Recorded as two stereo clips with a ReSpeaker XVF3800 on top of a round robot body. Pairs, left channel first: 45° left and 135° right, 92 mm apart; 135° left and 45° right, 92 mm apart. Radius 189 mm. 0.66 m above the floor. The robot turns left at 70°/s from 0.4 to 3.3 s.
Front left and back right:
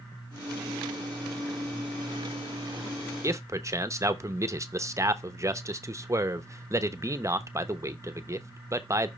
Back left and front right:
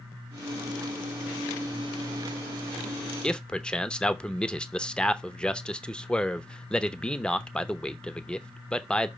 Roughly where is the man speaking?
Behind right.